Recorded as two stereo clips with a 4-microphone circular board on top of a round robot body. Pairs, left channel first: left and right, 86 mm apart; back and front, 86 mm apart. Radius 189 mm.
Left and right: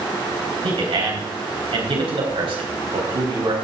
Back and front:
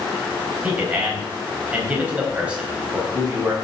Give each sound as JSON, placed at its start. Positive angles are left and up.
{"t": 0.6, "sound": "a man speaking", "azimuth_deg": -75, "distance_m": 4.0}